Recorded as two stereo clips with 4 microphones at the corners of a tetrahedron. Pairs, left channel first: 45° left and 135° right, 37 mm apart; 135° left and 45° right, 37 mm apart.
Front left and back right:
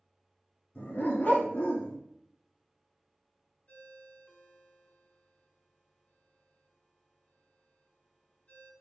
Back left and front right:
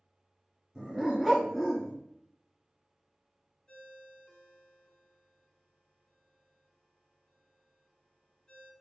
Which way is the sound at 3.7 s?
70° left.